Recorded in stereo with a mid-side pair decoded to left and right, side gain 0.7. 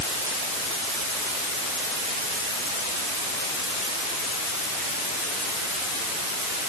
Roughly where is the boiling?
I don't hear boiling.